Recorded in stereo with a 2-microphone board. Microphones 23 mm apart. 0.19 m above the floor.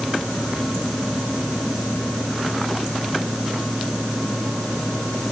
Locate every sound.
Only background noise.